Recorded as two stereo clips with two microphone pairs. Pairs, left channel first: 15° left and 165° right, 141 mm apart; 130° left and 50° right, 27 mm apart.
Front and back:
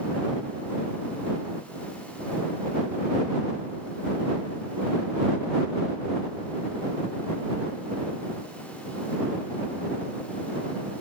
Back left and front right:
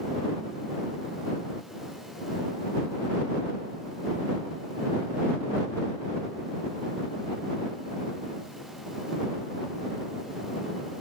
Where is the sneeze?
I don't hear a sneeze.